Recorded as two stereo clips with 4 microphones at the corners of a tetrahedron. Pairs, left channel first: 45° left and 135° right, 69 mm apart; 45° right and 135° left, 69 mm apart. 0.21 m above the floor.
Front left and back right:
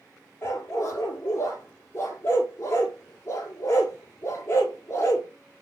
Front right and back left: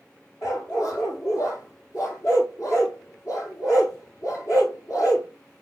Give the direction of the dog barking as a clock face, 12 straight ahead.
12 o'clock.